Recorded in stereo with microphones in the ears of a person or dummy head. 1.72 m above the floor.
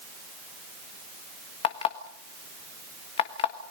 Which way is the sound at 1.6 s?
35° left (ahead or behind).